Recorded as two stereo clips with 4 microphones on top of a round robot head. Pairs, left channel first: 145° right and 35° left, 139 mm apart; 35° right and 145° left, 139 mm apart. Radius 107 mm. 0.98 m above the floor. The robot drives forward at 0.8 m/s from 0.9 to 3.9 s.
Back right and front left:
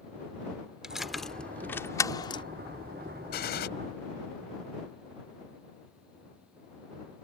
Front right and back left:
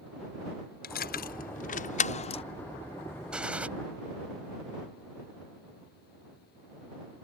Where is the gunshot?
130° right; by 3.7 s 135° right.